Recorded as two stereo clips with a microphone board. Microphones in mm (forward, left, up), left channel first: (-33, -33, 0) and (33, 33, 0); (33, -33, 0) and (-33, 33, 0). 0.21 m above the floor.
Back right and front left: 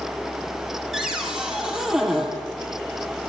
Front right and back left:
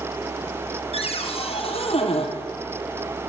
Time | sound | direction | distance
0.9 | a cupboard door | 40° right | 4 m